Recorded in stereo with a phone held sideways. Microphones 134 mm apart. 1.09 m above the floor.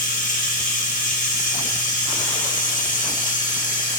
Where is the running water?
75° left (ahead or behind), 1.2 m.